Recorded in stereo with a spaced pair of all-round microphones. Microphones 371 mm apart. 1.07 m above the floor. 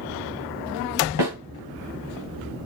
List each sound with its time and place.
1.2 s a snare drum: 65° left (ahead or behind), 2 m